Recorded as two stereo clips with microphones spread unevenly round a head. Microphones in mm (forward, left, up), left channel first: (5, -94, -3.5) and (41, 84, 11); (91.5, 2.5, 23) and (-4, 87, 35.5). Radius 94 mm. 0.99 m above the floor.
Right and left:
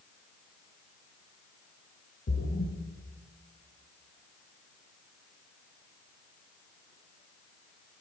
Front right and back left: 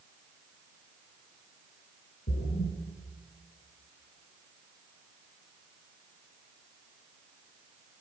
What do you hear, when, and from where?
2.3 s a splash: 55° right, 2.5 m